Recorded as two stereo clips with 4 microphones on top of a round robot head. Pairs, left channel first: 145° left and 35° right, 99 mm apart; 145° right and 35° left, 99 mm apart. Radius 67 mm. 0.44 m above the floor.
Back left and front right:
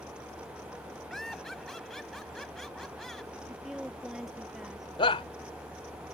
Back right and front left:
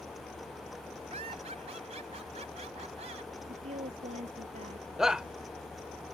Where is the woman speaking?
50° left.